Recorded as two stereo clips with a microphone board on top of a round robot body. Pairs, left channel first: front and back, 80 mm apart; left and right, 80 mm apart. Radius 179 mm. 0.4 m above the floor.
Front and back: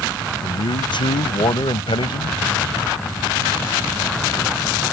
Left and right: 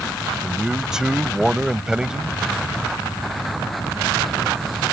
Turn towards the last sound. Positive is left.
turn(degrees=-10)